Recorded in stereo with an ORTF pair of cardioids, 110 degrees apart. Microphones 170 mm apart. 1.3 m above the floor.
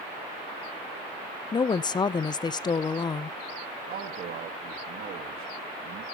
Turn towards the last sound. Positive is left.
turn(degrees=-60)